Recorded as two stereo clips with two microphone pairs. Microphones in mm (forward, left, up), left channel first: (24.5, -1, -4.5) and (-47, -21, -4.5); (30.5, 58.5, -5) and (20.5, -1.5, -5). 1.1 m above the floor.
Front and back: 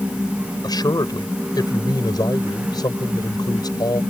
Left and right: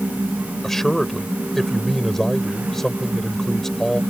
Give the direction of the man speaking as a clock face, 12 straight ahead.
12 o'clock.